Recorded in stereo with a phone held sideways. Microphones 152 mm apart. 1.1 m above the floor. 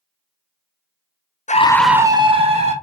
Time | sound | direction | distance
1.5 | a scream | 50° left (ahead or behind) | 0.5 m